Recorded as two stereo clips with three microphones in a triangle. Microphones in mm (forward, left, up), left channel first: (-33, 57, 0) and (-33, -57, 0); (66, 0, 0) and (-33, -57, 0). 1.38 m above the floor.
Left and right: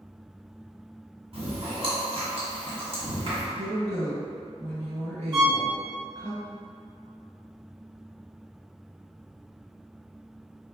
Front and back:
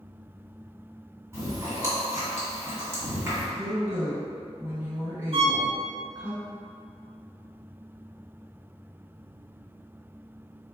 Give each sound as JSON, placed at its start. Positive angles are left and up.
{"t": 1.3, "sound": "chewing", "azimuth_deg": -90, "distance_m": 1.7}
{"t": 3.5, "sound": "a woman speaking", "azimuth_deg": -75, "distance_m": 1.8}
{"t": 5.3, "sound": "a violin", "azimuth_deg": -135, "distance_m": 0.7}